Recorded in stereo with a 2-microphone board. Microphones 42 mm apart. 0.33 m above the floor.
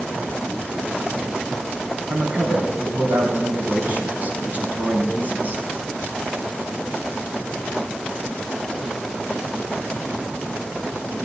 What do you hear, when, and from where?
2.1 s a man speaking: 35° right (ahead or behind), 2.5 m